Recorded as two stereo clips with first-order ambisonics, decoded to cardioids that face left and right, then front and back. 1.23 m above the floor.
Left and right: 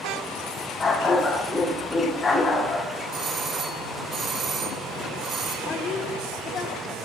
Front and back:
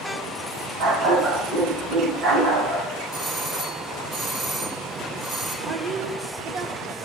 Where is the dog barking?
160° left, 1.2 m.